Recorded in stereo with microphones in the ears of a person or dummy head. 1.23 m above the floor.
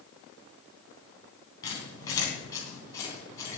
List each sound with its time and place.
1.6 s a squeak: 20° left (ahead or behind), 3 m